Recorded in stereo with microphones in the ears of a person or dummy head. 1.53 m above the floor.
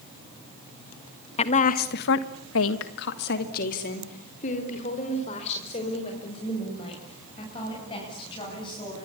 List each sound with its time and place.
1.4 s a woman speaking: 40° left (ahead or behind), 1.8 m; by 9.1 s 30° left (ahead or behind), 10.5 m